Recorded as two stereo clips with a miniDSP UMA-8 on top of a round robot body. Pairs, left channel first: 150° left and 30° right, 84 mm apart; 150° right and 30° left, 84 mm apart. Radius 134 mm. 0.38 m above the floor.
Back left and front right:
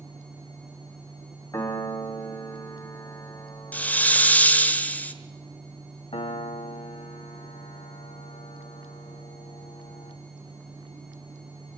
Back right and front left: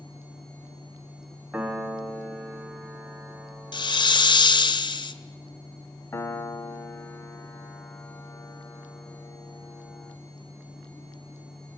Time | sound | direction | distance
1.5 | a piano | 110° left | 2.5 m
3.7 | a hiss | 140° right | 1.6 m
6.1 | a piano | 150° left | 1.3 m